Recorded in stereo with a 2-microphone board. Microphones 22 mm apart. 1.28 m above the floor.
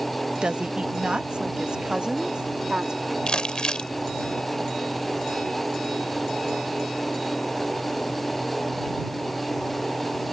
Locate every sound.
0.4 s a woman speaking: 55° right (ahead or behind); by 3.2 s 40° right (ahead or behind)
3.3 s crumpling: 45° left (ahead or behind)